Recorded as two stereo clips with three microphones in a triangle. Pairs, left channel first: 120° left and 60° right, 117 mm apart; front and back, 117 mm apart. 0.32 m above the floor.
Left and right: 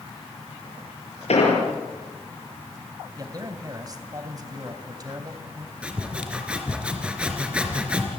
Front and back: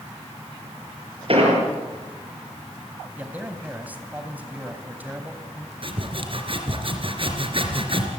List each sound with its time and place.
1.3 s an explosion: 145° left, 7 m
3.2 s a man speaking: 105° right, 2.5 m
5.8 s sawing: 140° right, 3.5 m